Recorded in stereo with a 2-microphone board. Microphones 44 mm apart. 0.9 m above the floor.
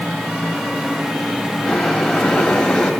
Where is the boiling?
5° left (ahead or behind), 5.5 m.